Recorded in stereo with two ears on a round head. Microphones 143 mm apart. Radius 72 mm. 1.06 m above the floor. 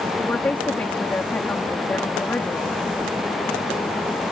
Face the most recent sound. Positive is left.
turn(degrees=10)  # may be behind; listen again after turning